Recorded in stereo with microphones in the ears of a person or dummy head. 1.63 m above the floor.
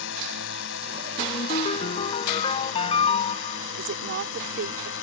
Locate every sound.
0.0 s a drone: 65° left (ahead or behind)
1.2 s a ringtone: 35° left (ahead or behind)
3.8 s a woman speaking: 65° right (ahead or behind)